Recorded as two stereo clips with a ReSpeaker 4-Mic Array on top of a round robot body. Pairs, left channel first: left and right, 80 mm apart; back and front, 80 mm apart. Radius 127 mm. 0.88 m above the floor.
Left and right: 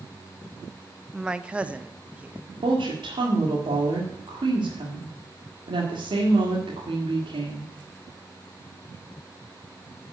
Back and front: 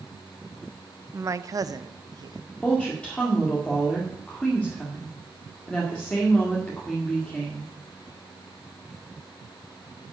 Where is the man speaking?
15° right, 0.7 m; by 2.4 s 20° right, 1.4 m.